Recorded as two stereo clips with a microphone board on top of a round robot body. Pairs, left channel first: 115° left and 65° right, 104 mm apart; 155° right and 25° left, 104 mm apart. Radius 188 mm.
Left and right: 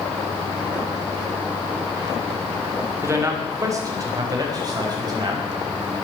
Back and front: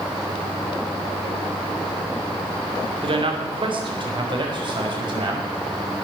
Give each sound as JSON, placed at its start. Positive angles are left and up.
{"t": 3.0, "sound": "a man speaking", "azimuth_deg": -5, "distance_m": 3.0}